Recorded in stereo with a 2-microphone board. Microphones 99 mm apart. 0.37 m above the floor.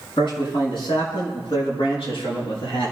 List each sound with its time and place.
0.2 s a man speaking: 55° left (ahead or behind), 5 m; by 2.9 s 65° left (ahead or behind), 8 m